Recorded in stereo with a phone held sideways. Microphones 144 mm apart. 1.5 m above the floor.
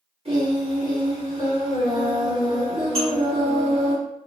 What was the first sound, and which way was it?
Singing, 45° right (ahead or behind).